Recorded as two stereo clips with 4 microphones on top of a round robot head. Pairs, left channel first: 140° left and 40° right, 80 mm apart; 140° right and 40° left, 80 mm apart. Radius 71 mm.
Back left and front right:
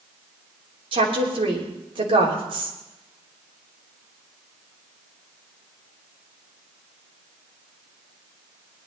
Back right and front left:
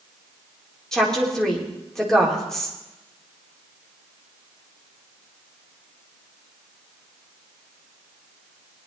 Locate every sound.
0.9 s a woman speaking: 55° right, 3.5 m